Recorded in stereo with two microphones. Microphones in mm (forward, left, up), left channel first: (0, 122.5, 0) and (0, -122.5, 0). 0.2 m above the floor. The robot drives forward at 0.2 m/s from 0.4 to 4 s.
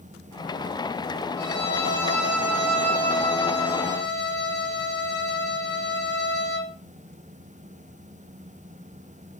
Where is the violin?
50° left (ahead or behind), 3 m; by 6.7 s 45° left (ahead or behind), 3.5 m.